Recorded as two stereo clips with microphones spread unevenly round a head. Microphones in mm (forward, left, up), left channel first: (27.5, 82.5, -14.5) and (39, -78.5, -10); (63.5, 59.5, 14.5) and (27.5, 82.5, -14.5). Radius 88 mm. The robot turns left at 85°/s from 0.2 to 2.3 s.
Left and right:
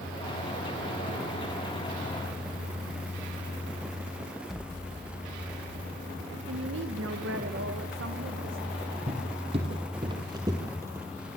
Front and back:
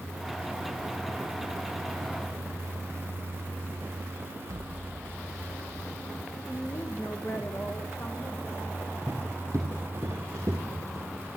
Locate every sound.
4.5 s an explosion: 175° right, 0.8 m
6.5 s a woman speaking: 95° right, 1.8 m
9.1 s footsteps: 135° right, 3.5 m; by 11.1 s 160° right, 3 m